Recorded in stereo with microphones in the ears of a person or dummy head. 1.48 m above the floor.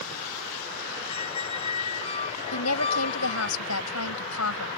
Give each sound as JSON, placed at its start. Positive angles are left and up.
{"t": 1.1, "sound": "a squeak", "side_deg": 35}
{"t": 2.5, "sound": "a woman speaking", "side_deg": 80}